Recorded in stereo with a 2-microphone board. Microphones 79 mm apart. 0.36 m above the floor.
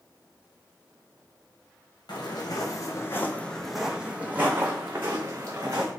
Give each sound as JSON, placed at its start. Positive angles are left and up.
{"t": 2.1, "sound": "footsteps", "side_deg": 65, "distance_m": 0.9}